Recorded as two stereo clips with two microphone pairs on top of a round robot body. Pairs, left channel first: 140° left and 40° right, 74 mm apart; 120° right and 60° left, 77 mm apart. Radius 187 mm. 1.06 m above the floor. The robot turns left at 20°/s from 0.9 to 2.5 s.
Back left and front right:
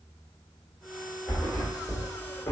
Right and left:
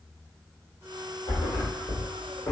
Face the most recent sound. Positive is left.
turn(degrees=-175)